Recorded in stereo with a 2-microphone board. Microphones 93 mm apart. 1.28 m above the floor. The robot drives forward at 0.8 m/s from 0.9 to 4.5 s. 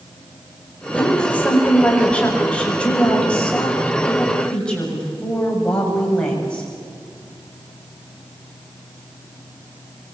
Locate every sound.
0.9 s a woman speaking: 15° left (ahead or behind), 5 m; by 6.7 s 10° left (ahead or behind), 7.5 m